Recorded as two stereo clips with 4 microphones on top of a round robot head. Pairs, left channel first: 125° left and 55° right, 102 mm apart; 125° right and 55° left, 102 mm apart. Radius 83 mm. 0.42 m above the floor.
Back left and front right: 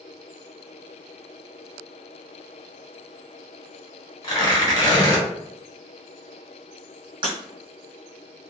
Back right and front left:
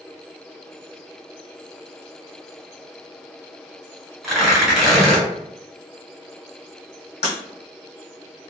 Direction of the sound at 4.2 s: 140° left.